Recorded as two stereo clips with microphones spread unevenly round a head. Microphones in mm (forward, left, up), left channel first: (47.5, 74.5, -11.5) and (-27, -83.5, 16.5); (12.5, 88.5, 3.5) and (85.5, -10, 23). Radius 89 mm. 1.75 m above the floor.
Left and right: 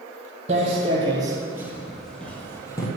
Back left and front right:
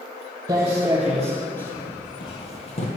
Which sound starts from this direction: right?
Footsteps, at 0.5 s.